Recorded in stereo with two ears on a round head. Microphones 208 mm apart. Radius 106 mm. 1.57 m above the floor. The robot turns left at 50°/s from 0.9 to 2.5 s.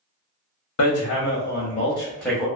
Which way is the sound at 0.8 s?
70° left.